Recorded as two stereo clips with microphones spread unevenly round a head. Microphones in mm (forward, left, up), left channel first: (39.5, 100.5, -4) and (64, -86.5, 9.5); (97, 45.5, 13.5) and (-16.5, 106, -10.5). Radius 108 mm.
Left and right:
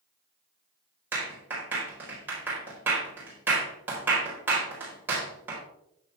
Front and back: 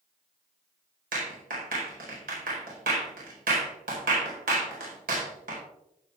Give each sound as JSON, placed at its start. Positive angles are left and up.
{"t": 1.1, "sound": "a clap", "azimuth_deg": -165, "distance_m": 4.0}